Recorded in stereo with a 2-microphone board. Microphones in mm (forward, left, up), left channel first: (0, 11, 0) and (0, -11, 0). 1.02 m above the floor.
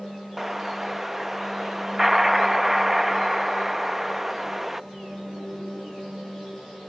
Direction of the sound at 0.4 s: 10° right (ahead or behind).